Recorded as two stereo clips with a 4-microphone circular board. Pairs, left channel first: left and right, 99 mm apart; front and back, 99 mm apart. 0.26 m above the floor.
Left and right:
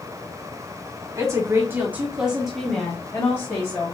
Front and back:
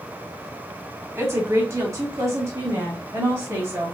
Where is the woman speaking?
130° right, 2.0 m; by 4.0 s 130° left, 2 m.